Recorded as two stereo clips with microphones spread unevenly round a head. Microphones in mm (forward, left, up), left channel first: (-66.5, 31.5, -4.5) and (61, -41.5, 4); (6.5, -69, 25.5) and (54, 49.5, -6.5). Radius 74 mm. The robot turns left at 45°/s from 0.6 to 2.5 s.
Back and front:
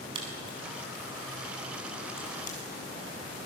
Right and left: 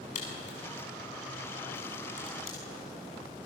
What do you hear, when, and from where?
0.1 s a crack: 90° right, 6 m; by 2.6 s 175° right, 6 m